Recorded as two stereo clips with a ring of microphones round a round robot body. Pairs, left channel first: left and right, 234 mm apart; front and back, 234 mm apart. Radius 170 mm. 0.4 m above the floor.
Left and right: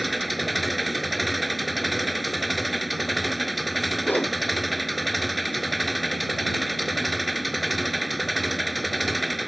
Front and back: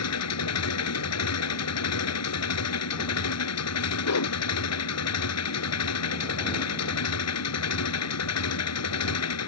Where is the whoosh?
5° left.